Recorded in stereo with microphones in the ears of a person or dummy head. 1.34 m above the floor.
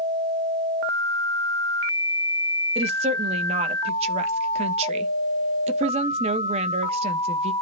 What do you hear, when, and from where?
2.8 s a woman speaking: 35° right (ahead or behind), 1.3 m